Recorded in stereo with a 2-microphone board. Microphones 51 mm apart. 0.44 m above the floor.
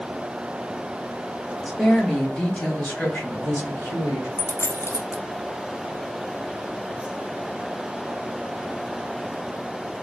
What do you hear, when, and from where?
1.6 s a woman speaking: 5° right (ahead or behind), 1.3 m; by 4.3 s 50° left (ahead or behind), 1.8 m
4.4 s a dropped coin: 60° left (ahead or behind), 0.6 m